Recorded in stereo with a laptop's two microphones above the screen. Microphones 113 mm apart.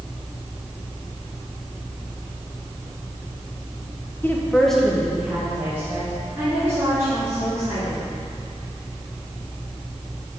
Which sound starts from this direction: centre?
A woman speaking, at 4.2 s.